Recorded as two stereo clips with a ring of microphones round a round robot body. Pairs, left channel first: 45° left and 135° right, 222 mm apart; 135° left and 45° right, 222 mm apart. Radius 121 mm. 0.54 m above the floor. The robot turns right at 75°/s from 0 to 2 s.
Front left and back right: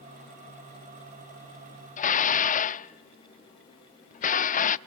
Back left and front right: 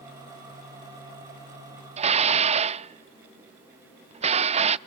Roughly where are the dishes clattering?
Ahead.